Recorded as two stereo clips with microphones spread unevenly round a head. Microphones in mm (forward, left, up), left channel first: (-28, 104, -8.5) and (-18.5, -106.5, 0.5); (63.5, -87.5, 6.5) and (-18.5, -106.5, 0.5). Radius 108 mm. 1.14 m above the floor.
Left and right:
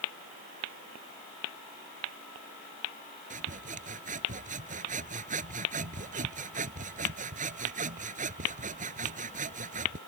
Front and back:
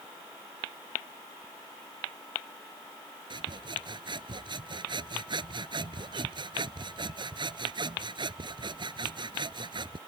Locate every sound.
3.3 s sawing: 140° right